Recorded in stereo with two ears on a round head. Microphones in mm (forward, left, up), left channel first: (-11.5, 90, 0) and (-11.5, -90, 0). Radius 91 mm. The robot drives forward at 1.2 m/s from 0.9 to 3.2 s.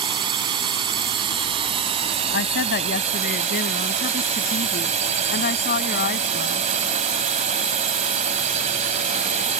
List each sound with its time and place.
0.0 s a drone: 25° right (ahead or behind); by 9.6 s 35° right (ahead or behind)
2.3 s a woman speaking: 65° left (ahead or behind); by 6.7 s 50° left (ahead or behind)